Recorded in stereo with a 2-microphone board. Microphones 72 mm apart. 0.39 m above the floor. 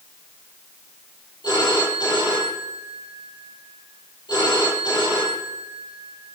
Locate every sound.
1.4 s a phone ringing: 80° left, 6 m